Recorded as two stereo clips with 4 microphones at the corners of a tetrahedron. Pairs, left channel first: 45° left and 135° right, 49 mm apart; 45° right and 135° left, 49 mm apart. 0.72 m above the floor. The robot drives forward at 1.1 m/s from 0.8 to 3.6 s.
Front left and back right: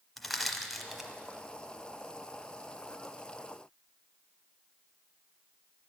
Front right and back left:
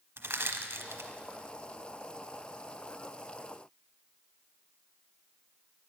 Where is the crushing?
130° left, 1.0 m; by 1.1 s 140° left, 1.2 m.